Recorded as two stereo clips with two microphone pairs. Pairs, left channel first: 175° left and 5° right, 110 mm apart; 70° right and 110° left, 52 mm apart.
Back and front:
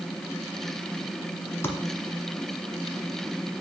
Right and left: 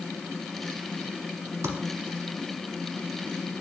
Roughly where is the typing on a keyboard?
Left.